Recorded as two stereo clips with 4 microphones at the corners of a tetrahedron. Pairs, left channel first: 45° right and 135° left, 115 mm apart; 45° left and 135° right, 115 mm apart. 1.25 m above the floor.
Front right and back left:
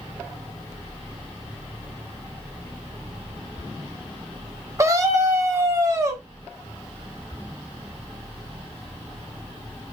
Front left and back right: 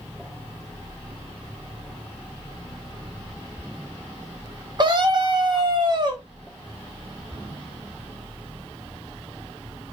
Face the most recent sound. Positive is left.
turn(degrees=-175)